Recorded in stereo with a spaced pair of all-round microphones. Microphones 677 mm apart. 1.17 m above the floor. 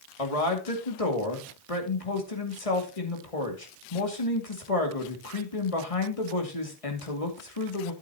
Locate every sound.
0.2 s a man speaking: 55° left (ahead or behind), 2.5 m